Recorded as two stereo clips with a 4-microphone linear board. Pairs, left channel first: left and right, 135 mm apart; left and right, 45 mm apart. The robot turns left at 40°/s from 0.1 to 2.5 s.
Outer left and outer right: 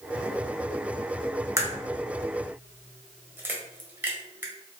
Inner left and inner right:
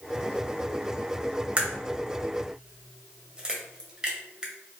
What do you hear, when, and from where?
1.6 s a crack: 20° right (ahead or behind), 0.9 m; by 4.5 s 15° right (ahead or behind), 0.9 m